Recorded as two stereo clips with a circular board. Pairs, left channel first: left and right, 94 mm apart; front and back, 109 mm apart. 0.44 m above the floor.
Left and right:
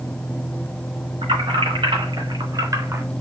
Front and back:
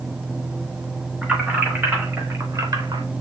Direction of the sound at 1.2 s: 100° right.